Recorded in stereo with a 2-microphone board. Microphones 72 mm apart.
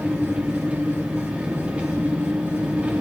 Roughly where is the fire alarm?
I don't hear a fire alarm.